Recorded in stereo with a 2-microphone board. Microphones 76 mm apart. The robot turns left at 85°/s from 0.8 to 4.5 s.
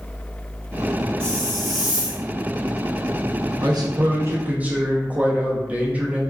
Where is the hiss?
15° left (ahead or behind), 0.9 m; by 2.2 s 15° right (ahead or behind), 0.9 m.